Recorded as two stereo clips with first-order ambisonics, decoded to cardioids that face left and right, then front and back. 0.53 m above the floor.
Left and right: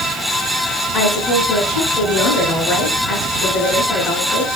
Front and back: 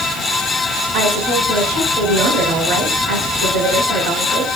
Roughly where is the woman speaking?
Behind.